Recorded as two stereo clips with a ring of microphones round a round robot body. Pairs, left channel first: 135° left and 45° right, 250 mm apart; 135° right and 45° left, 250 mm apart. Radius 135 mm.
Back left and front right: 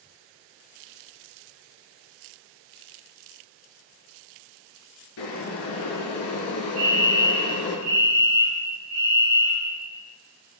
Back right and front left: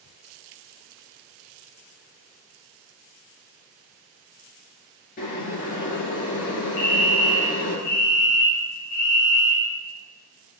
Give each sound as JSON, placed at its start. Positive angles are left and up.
{"t": 5.2, "sound": "boiling", "azimuth_deg": 165, "distance_m": 3.0}
{"t": 6.8, "sound": "a fire alarm", "azimuth_deg": -100, "distance_m": 5.5}